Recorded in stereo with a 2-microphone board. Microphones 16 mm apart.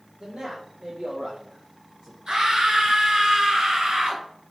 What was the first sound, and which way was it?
A man speaking, 60° right (ahead or behind).